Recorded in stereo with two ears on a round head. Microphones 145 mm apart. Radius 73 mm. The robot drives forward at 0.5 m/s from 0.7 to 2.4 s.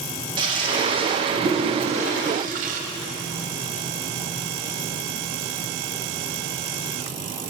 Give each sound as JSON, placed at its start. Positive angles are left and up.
{"t": 0.4, "sound": "a toilet flushing", "side_deg": -30, "distance_m": 1.6}